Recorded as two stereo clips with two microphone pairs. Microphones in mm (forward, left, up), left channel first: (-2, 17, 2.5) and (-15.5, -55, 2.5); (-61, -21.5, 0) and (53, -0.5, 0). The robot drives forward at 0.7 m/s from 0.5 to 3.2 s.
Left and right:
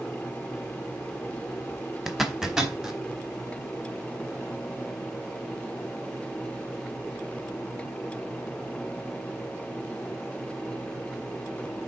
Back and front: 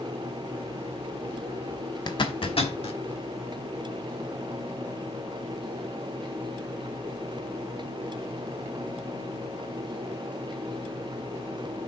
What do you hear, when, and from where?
2.1 s a zipper: 175° left, 0.8 m; by 3.0 s straight behind, 1.3 m